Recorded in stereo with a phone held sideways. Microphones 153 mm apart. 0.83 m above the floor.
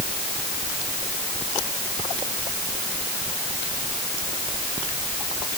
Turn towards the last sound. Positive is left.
No sound to turn to.